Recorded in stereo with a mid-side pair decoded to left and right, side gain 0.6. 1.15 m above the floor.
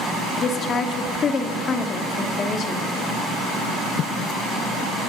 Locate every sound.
0.4 s a woman speaking: 40° left, 2 m